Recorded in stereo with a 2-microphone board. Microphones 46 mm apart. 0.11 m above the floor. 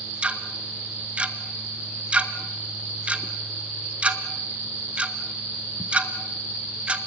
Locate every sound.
0.2 s ticking: 25° right (ahead or behind), 1.4 m